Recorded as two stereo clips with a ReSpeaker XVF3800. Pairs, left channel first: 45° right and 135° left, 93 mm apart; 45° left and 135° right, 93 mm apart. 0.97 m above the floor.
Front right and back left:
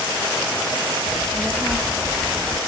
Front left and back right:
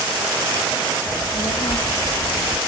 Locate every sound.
1.1 s a child speaking: 50° left, 1.6 m; by 2.6 s 70° left, 1.0 m